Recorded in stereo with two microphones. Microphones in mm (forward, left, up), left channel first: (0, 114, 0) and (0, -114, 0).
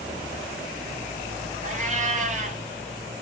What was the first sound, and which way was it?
A cat meowing, 35° right (ahead or behind).